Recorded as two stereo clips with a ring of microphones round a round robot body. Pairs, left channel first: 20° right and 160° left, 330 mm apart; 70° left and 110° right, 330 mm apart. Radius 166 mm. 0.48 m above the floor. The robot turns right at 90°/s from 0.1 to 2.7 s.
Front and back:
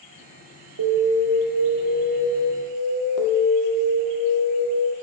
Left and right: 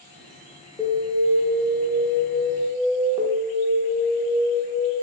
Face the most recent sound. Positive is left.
turn(degrees=-30)